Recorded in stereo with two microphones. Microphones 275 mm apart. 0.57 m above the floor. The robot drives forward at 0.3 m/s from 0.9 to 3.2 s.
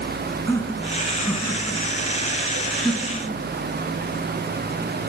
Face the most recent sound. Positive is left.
turn(degrees=15)  # may be behind; listen again after turning